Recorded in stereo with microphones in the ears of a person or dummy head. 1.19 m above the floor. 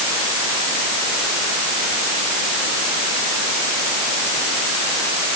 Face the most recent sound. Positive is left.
No sound to turn to.